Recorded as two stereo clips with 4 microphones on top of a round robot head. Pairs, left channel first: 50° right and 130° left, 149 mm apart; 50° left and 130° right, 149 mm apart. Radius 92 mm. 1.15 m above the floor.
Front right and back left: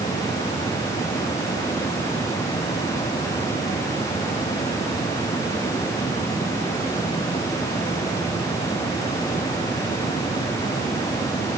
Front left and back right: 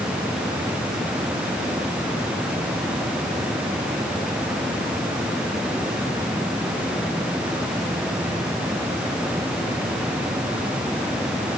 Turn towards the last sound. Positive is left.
No sound to turn to.